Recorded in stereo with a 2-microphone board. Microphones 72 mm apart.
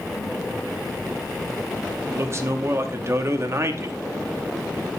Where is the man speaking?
40° right (ahead or behind), 0.9 m.